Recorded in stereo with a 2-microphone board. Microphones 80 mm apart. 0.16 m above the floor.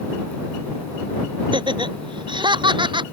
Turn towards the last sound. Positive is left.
turn(degrees=-80)